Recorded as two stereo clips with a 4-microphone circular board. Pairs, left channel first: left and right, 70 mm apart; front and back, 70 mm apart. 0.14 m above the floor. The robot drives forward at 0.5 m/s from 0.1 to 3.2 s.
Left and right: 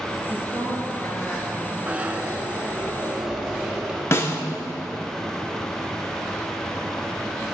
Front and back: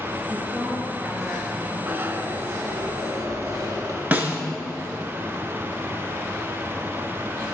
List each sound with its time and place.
0.3 s a woman speaking: 115° left, 2.5 m; by 1.8 s 130° left, 3 m
1.9 s a zipper: 140° right, 0.8 m; by 4.0 s 165° right, 1.2 m
4.1 s a snare drum: 120° left, 0.9 m